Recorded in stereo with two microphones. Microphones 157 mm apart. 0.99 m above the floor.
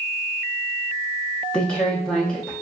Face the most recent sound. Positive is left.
turn(degrees=5)  # may be behind; listen again after turning